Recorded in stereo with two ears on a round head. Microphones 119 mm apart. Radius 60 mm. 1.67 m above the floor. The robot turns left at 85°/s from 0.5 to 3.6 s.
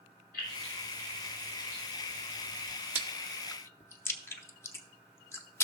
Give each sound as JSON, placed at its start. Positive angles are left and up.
{"t": 0.3, "sound": "keys jangling", "side_deg": 85, "distance_m": 5.0}
{"t": 3.0, "sound": "chewing", "side_deg": -15, "distance_m": 0.7}